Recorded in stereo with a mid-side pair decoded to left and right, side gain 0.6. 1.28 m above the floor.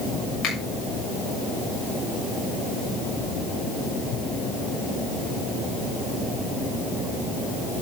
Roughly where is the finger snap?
Ahead left.